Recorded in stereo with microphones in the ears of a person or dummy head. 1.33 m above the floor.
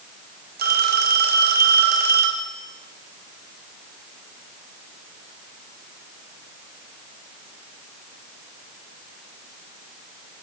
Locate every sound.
0.6 s a phone ringing: 50° right (ahead or behind), 4 m